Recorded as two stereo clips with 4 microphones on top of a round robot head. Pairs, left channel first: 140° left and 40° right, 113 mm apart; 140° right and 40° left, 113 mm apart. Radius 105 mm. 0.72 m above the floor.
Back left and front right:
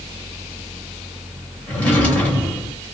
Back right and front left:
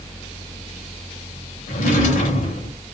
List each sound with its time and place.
1.7 s a drawer: 140° right, 0.7 m